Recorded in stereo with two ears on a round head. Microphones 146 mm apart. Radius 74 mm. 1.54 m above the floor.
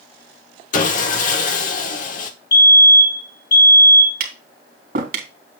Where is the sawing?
55° left (ahead or behind), 1.3 m.